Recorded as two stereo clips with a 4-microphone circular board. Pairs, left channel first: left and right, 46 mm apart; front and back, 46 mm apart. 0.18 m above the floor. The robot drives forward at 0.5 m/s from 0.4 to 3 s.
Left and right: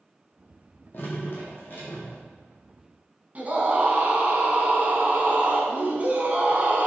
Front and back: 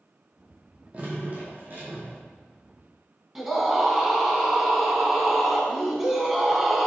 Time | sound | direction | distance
0.9 | dripping | 120° left | 1.6 m
3.4 | a scream | 110° right | 1.3 m